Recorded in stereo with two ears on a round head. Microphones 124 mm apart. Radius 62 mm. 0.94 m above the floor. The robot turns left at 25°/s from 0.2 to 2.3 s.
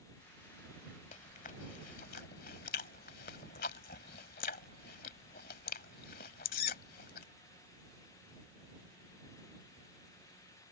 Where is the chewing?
55° left (ahead or behind); by 7.3 s 70° left (ahead or behind).